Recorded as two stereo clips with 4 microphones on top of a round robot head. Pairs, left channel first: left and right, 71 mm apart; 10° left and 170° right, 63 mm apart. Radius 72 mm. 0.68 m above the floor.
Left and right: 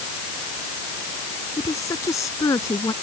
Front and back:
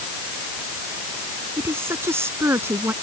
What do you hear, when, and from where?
1.6 s a woman speaking: 140° left